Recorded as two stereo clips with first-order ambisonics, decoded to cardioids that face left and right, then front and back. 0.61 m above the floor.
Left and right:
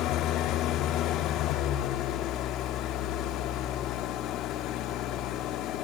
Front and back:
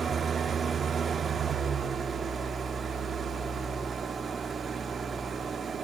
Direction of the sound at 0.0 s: 115° left.